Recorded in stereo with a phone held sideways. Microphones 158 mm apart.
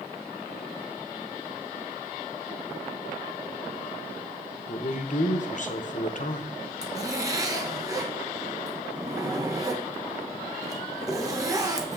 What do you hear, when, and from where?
4.7 s a man speaking: 50° left (ahead or behind), 0.9 m
6.8 s a zipper: 20° right (ahead or behind), 1.0 m